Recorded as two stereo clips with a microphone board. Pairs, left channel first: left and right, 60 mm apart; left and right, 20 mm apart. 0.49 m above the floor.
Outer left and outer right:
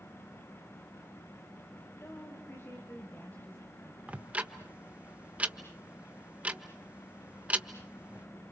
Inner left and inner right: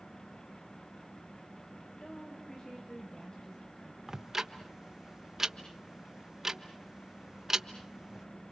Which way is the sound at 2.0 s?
45° left (ahead or behind).